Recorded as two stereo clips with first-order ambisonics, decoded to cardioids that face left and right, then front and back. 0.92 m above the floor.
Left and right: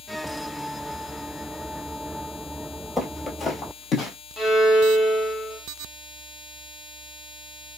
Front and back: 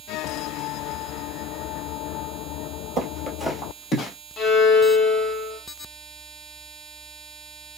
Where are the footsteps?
Straight behind, 1.0 m; by 4.1 s 45° left, 1.3 m.